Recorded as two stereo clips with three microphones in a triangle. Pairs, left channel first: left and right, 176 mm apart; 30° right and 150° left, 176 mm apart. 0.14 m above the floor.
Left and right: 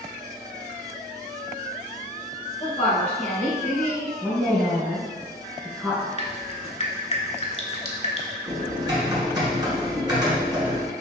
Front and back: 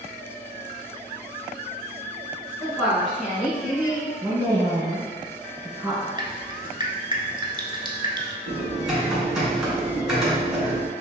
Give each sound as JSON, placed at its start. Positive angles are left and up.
{"t": 2.6, "sound": "a woman speaking", "azimuth_deg": 45, "distance_m": 1.9}
{"t": 4.2, "sound": "a woman speaking", "azimuth_deg": 180, "distance_m": 1.7}
{"t": 6.2, "sound": "dripping", "azimuth_deg": 105, "distance_m": 0.7}
{"t": 8.5, "sound": "typing on a keyboard", "azimuth_deg": -130, "distance_m": 1.6}